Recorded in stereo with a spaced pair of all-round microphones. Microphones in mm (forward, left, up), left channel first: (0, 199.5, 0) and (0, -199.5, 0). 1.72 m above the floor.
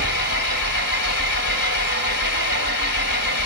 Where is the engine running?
45° left (ahead or behind), 3 m.